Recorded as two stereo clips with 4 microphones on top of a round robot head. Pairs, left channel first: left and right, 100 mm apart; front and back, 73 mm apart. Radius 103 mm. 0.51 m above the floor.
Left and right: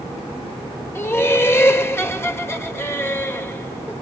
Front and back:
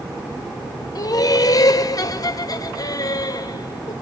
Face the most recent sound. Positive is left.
turn(degrees=25)